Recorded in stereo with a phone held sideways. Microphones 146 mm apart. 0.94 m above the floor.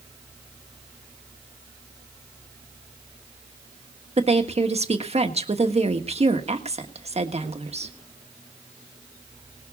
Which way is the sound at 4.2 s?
45° right (ahead or behind).